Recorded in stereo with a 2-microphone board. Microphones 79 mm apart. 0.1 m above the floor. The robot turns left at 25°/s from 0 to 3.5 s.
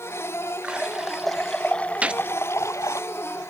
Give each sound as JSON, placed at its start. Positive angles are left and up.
{"t": 0.6, "sound": "a running tap", "azimuth_deg": -165}
{"t": 2.0, "sound": "a gunshot", "side_deg": -15}